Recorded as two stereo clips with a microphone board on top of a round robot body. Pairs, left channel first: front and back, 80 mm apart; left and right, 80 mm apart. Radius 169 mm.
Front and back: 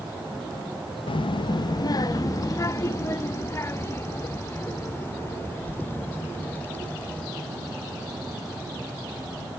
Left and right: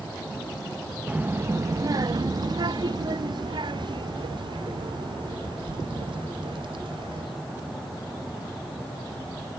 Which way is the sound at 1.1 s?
15° right.